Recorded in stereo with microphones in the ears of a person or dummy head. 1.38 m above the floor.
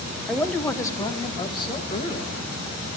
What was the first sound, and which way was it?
A man speaking, centre (ahead or behind).